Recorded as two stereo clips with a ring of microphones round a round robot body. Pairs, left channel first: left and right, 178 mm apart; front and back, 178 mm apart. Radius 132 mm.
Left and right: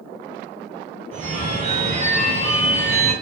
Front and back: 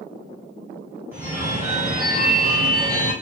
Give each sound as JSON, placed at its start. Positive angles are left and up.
{"t": 1.1, "sound": "a phone ringing", "azimuth_deg": -110, "distance_m": 0.9}